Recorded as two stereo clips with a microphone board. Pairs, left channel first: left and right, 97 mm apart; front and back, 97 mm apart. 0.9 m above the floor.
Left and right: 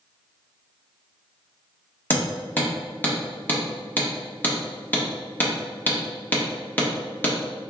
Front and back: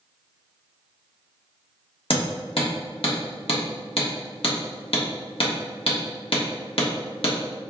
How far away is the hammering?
About 1.3 m.